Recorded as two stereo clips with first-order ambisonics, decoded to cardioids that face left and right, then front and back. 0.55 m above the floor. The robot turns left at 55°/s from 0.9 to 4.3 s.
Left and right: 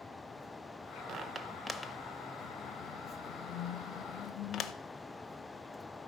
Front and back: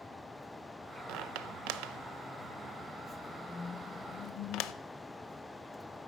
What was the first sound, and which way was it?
A squeak, 150° right.